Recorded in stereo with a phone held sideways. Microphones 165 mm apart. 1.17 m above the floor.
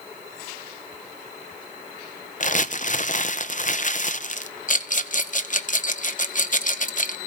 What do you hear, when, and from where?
2.4 s crumpling: 50° left (ahead or behind), 0.7 m
4.7 s a rattle: 50° left (ahead or behind), 0.8 m